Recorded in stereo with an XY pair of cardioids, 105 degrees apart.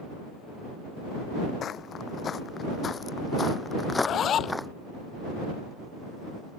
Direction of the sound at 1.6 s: 55° left.